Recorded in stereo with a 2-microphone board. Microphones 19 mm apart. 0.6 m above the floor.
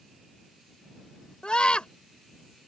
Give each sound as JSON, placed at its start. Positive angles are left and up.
{"t": 1.4, "sound": "a scream", "side_deg": 60}